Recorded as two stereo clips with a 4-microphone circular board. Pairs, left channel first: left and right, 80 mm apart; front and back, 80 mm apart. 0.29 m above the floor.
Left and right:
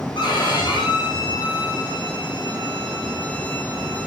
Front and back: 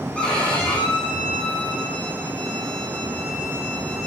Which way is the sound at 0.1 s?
75° left.